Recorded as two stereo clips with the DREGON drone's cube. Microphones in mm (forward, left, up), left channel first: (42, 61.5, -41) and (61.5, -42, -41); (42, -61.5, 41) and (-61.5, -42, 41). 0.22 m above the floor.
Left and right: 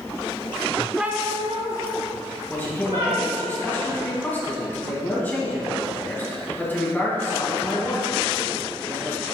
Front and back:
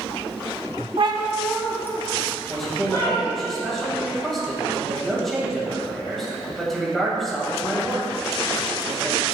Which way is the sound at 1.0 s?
165° right.